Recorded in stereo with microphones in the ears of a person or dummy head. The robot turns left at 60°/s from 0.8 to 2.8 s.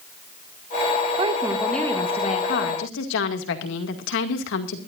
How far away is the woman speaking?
About 2 m.